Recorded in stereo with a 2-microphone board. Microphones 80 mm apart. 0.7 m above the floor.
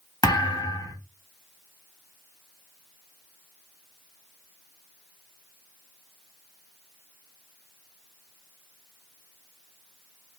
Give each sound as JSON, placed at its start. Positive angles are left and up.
{"t": 0.2, "sound": "a thud", "side_deg": 60, "distance_m": 1.5}